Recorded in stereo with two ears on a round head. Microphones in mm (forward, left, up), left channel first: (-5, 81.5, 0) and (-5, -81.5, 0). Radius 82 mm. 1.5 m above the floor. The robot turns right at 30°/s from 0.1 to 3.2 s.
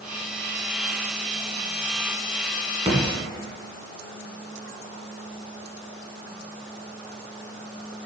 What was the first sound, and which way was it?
A thud, 25° right (ahead or behind).